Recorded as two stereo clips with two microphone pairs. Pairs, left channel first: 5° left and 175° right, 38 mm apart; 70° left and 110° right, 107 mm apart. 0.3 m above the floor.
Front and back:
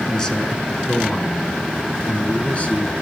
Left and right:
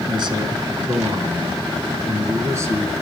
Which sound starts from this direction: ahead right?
A man speaking, at 0.1 s.